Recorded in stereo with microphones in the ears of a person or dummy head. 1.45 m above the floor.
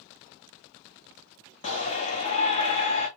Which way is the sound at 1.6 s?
40° left (ahead or behind).